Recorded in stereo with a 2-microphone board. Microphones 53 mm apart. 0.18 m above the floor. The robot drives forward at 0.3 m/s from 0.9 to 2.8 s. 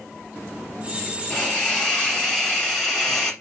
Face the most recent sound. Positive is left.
turn(degrees=10)  # may be behind; listen again after turning